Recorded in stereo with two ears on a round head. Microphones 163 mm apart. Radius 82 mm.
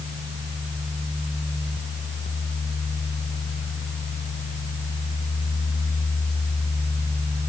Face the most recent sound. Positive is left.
No sound to turn to.